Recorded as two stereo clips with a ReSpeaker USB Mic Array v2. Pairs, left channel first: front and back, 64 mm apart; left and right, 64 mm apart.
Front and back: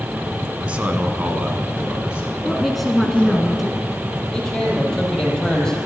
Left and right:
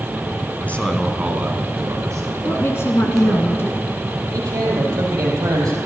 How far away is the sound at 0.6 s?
About 1.3 m.